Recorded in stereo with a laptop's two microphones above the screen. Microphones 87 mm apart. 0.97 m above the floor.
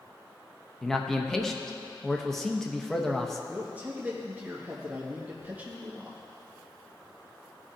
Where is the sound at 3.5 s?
20° right (ahead or behind), 1.2 m.